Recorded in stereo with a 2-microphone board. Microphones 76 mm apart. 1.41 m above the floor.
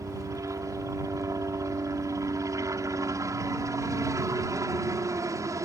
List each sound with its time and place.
0.0 s a helicopter: 40° right (ahead or behind)